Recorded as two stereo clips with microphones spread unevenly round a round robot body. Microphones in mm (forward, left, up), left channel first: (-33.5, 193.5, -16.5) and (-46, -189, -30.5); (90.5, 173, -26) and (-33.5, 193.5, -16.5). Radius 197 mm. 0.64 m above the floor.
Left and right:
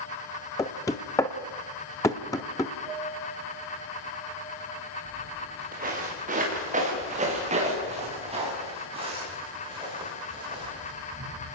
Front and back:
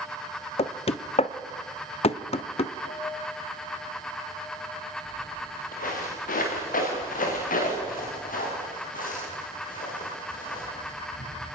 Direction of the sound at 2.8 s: Straight ahead.